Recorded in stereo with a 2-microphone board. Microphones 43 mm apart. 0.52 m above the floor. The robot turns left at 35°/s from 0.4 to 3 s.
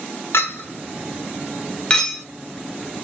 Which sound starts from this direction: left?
A clink, at 0.3 s.